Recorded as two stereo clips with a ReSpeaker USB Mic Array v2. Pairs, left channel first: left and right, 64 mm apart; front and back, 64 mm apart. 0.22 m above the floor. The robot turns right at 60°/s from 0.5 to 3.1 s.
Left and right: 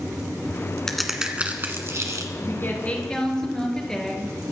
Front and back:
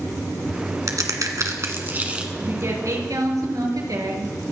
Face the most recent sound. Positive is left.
turn(degrees=170)